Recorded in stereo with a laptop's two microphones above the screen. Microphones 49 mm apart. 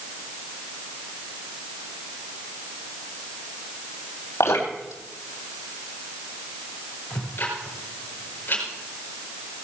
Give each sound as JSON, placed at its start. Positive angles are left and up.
{"t": 4.4, "sound": "dripping", "side_deg": 75, "distance_m": 3.5}
{"t": 7.1, "sound": "ticking", "side_deg": 45, "distance_m": 4.5}